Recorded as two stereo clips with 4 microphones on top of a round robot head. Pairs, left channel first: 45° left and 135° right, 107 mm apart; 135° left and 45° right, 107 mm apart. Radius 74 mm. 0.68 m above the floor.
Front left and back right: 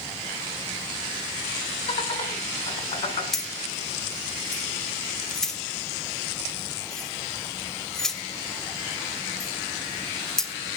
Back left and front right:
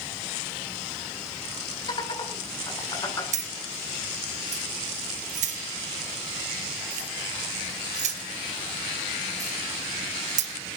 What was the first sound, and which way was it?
Laughter, 85° left.